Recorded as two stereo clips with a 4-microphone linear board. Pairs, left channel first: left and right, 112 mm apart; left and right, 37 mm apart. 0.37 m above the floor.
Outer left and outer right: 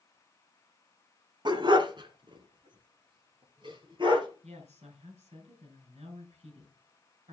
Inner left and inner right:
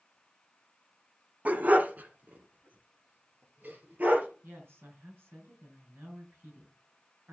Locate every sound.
1.4 s a dog barking: 45° right (ahead or behind), 1.0 m
4.4 s a woman speaking: 80° right, 5 m